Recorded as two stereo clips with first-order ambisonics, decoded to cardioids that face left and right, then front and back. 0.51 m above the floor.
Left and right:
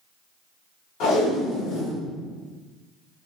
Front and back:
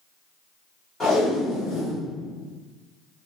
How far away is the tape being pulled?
About 1.7 m.